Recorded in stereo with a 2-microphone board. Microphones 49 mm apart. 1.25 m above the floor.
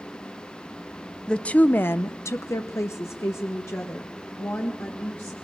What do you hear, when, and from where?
1.3 s a woman speaking: 20° left (ahead or behind), 0.8 m; by 5.3 s 50° left (ahead or behind), 2.5 m